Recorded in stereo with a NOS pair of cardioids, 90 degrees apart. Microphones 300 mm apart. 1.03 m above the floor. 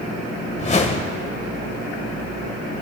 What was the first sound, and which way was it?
A whoosh, 25° left.